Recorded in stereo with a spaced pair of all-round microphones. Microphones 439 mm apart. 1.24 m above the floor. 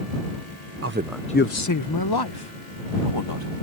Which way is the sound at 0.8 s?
35° right (ahead or behind).